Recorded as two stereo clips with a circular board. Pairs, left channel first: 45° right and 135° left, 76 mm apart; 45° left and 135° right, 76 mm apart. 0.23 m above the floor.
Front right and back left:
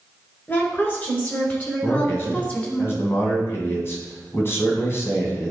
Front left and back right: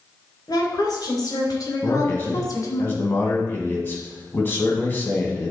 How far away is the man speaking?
About 2 m.